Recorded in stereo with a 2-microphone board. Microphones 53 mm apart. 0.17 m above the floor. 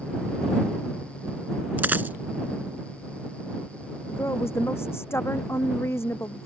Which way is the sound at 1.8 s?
35° right (ahead or behind).